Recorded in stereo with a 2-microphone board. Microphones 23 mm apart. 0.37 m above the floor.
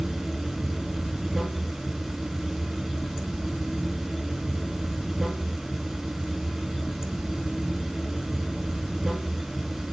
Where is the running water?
25° right (ahead or behind), 1.1 m.